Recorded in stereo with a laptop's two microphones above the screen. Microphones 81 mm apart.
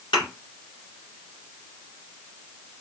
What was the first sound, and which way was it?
A thud, 75° left (ahead or behind).